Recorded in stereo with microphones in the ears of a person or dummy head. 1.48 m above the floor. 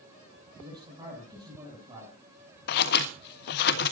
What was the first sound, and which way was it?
A man speaking, 25° right (ahead or behind).